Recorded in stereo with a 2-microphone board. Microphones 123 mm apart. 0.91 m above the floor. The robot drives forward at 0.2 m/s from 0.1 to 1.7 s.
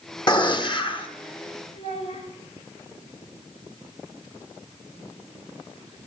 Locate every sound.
0.3 s a gunshot: 40° left (ahead or behind), 0.9 m; by 1.1 s 45° left (ahead or behind), 0.8 m
1.7 s a child speaking: 55° left (ahead or behind), 3 m